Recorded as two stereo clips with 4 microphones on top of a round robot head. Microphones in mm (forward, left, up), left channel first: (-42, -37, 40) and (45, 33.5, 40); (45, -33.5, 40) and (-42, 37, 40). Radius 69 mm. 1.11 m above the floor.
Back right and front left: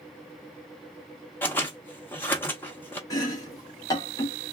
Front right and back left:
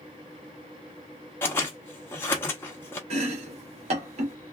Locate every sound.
1.4 s scissors: 90° right, 0.5 m
3.1 s chopping: 160° left, 1.3 m